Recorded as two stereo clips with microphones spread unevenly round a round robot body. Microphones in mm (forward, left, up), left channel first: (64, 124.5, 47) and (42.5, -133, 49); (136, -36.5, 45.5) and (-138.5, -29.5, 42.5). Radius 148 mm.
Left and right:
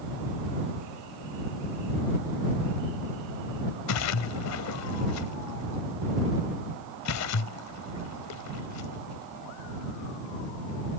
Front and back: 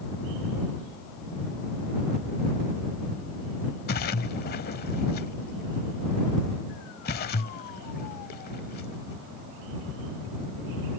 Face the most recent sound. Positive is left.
turn(degrees=60)